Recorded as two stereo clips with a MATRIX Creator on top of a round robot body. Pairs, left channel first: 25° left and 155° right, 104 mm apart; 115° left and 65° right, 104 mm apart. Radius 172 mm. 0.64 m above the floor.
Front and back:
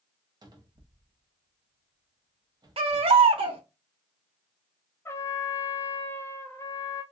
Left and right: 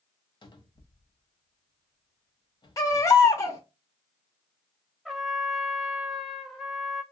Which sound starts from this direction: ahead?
A trumpet, at 5.0 s.